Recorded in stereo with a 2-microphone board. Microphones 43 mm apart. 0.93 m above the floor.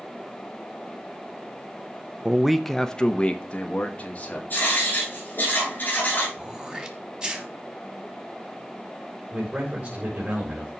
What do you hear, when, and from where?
2.2 s a man speaking: 15° right (ahead or behind), 0.5 m; by 4.4 s 35° left (ahead or behind), 1.8 m
4.5 s writing: 40° left (ahead or behind), 8 m
6.4 s throat clearing: 15° right (ahead or behind), 1.2 m
9.3 s a man speaking: 35° right (ahead or behind), 3.5 m